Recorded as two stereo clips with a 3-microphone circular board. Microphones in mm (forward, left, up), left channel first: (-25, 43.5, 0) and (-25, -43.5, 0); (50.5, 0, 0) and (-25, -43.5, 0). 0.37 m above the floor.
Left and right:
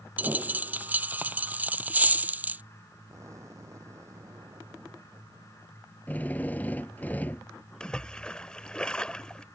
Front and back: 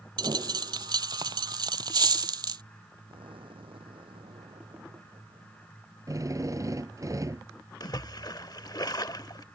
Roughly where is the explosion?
Behind right.